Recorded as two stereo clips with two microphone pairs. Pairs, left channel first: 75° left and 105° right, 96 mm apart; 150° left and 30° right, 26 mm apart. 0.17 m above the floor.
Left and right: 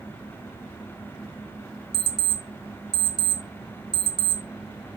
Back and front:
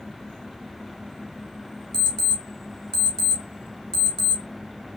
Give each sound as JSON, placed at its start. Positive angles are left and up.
{"t": 1.9, "sound": "an alarm clock", "azimuth_deg": 85, "distance_m": 0.9}